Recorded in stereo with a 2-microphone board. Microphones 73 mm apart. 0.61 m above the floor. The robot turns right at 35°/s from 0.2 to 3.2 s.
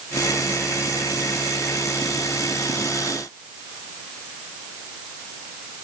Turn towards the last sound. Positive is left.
No sound to turn to.